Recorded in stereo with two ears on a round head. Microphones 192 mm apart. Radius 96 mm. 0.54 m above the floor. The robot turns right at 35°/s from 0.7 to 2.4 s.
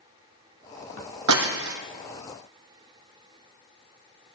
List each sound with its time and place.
1.3 s breaking glass: 80° right, 2 m; by 1.8 s 70° right (ahead or behind), 2 m